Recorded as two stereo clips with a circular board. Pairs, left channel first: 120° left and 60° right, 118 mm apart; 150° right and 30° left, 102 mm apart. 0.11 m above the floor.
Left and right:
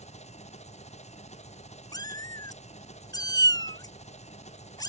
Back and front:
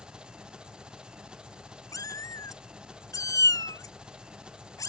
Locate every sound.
0.0 s an engine running: 110° left
1.9 s a cat meowing: 165° left